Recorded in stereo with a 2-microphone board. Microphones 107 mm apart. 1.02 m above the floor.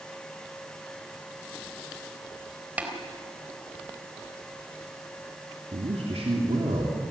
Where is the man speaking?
75° right (ahead or behind), 3 m.